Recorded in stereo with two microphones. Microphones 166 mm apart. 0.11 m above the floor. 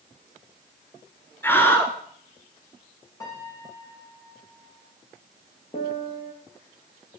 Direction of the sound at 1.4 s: 10° left (ahead or behind).